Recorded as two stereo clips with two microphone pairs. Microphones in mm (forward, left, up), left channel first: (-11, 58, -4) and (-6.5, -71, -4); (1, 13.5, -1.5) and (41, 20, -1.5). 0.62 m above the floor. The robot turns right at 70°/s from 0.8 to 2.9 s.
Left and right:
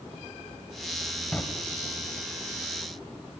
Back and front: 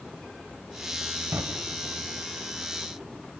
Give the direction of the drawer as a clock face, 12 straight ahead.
12 o'clock.